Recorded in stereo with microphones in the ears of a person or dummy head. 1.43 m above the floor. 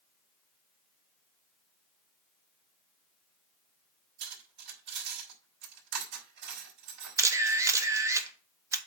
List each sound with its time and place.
4.2 s cutlery clinking: 70° right (ahead or behind), 4 m
7.2 s a camera shutter: 15° right (ahead or behind), 0.9 m